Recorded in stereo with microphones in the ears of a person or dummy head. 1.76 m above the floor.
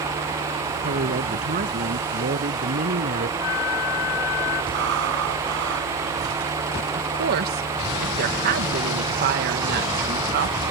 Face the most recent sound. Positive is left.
turn(degrees=-50)  # may be behind; listen again after turning